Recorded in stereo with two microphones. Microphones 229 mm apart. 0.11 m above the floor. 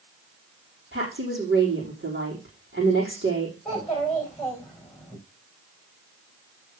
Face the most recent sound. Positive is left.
turn(degrees=0)  # may be behind; listen again after turning